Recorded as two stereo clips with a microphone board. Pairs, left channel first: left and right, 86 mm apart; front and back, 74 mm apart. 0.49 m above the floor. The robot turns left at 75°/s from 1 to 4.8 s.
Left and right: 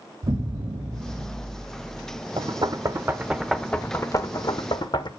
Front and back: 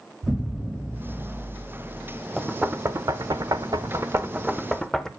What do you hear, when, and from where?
0.2 s an explosion: 95° right, 1.3 m; by 2.2 s 175° left, 1.3 m
2.4 s knocking: 95° right, 0.8 m; by 5.1 s 85° left, 0.8 m